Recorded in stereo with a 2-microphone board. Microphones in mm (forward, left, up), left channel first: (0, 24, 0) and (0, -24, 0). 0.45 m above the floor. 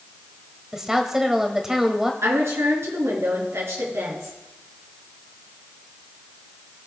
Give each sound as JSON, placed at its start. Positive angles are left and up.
{"t": 0.7, "sound": "a woman speaking", "side_deg": -10, "distance_m": 1.9}
{"t": 2.2, "sound": "a woman speaking", "side_deg": -65, "distance_m": 5.5}